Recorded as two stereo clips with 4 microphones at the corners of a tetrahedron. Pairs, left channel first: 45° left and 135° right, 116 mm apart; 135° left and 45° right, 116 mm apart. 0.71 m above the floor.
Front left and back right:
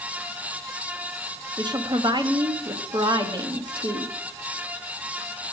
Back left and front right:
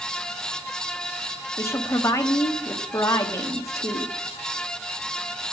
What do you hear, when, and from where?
1.6 s a woman speaking: 170° right, 1.1 m